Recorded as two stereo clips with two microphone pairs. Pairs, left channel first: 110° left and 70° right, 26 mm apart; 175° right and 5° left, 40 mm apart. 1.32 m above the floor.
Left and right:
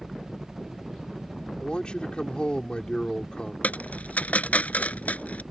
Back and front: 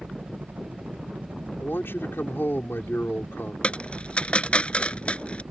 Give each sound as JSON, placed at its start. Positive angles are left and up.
{"t": 0.0, "sound": "a helicopter", "azimuth_deg": 0}
{"t": 1.6, "sound": "a man speaking", "azimuth_deg": 160}
{"t": 3.6, "sound": "a dropped coin", "azimuth_deg": 125}